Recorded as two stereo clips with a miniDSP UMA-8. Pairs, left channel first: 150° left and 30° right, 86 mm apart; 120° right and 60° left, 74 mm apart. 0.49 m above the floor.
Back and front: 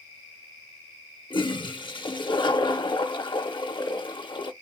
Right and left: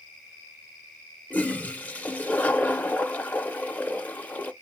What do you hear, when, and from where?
1.3 s a toilet flushing: 170° left, 0.6 m